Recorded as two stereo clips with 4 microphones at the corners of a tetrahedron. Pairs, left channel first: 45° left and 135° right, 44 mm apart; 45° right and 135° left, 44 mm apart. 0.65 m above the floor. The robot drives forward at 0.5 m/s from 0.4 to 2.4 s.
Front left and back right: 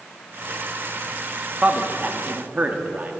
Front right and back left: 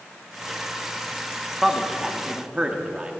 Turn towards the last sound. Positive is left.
turn(degrees=-165)